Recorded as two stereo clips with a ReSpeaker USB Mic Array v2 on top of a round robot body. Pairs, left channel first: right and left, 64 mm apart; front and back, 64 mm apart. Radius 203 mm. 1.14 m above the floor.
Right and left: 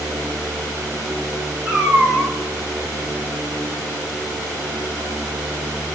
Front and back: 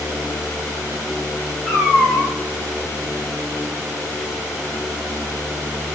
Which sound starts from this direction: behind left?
A cat meowing, at 1.6 s.